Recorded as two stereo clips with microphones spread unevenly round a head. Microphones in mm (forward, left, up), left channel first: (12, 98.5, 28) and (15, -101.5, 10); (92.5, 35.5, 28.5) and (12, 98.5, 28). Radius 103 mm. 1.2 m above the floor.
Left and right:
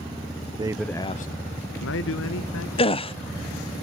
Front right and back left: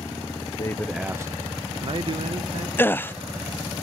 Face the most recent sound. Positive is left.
turn(degrees=30)